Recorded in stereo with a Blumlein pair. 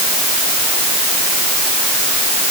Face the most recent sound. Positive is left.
No sound to turn to.